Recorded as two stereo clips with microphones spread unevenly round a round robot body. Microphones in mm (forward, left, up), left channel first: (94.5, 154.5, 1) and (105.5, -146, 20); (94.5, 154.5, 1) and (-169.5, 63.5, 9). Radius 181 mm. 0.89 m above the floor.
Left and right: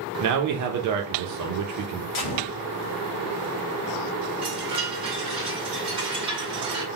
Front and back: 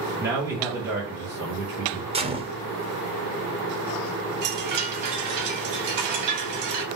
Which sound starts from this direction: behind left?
A gunshot, at 2.1 s.